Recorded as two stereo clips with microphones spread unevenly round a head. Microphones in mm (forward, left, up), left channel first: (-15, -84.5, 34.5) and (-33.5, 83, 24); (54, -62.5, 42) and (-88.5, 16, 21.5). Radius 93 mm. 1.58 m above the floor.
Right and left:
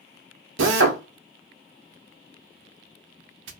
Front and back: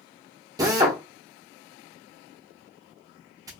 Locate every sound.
0.6 s a drill: 80° left, 0.7 m